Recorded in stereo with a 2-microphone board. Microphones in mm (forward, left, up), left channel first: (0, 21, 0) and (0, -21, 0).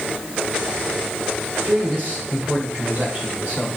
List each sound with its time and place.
1.6 s a man speaking: 50° right (ahead or behind), 2 m